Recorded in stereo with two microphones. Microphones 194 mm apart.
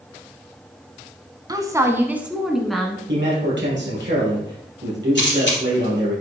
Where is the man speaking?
70° right (ahead or behind), 4 m.